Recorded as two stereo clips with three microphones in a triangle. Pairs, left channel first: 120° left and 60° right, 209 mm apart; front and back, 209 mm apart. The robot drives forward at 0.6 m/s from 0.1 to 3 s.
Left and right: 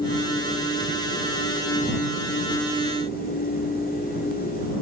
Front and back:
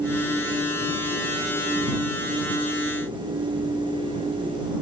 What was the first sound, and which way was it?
Only background noise.